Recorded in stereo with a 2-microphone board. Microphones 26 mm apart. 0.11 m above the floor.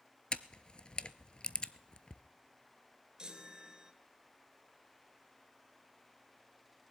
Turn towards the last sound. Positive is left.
turn(degrees=-30)  # may be behind; listen again after turning